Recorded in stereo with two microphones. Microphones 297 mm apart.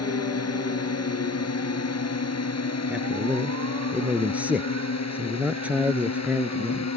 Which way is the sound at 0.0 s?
55° left (ahead or behind).